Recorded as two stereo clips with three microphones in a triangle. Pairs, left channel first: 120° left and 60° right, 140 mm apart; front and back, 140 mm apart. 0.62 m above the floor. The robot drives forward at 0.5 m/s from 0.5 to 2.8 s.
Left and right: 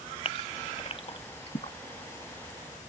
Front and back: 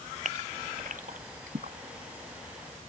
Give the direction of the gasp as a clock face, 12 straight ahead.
7 o'clock.